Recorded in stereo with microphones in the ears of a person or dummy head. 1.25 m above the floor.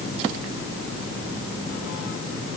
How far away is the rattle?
No rattle in this recording.